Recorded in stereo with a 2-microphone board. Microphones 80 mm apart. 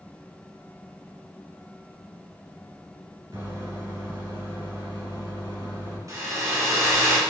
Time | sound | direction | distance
3.3 | a microwave | 55° right (ahead or behind) | 1.8 m
6.1 | a hair dryer | 45° right (ahead or behind) | 1.1 m